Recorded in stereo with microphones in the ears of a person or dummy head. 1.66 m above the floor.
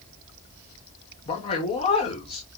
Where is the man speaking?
35° left (ahead or behind), 1.1 m.